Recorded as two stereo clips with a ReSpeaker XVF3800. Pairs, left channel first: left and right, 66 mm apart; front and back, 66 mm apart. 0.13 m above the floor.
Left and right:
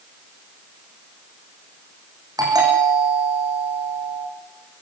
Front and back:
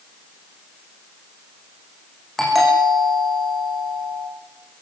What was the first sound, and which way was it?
A doorbell, 85° right.